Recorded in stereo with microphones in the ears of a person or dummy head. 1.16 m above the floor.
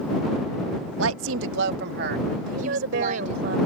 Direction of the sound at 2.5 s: 70° right (ahead or behind).